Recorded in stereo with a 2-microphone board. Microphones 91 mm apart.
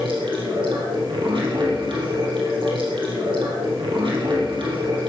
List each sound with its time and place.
0.0 s running water: 70° right (ahead or behind), 4 m